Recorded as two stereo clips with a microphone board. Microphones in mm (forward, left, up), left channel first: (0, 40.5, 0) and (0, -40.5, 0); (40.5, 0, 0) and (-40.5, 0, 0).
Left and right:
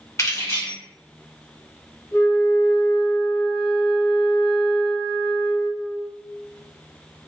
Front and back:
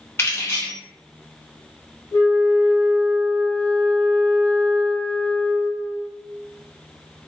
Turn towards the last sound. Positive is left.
turn(degrees=45)